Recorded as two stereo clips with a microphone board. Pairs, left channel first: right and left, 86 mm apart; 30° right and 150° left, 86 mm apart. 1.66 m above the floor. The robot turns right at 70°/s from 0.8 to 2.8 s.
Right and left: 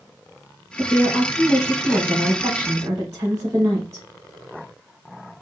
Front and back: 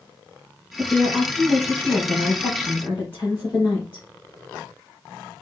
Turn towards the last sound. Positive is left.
turn(degrees=35)